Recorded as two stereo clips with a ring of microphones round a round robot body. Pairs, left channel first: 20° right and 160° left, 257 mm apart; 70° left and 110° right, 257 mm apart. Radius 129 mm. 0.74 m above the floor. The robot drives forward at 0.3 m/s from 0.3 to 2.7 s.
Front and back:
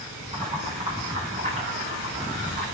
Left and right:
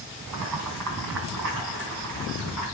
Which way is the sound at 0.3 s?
130° right.